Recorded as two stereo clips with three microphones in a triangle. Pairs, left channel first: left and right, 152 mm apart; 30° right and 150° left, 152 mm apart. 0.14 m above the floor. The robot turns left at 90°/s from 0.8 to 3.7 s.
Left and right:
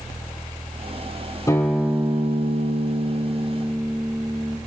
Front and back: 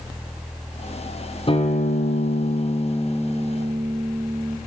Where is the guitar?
20° left, 3 m; by 4.6 s straight behind, 3 m.